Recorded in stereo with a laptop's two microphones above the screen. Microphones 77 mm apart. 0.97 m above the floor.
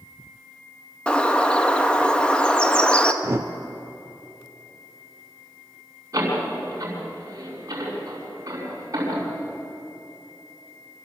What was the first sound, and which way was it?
A bird, 10° left (ahead or behind).